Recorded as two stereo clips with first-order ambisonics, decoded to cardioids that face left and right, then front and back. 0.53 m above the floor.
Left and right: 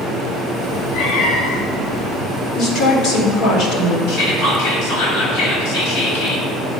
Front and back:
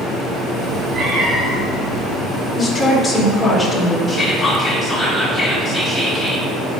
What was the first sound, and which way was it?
A cat meowing, 120° left.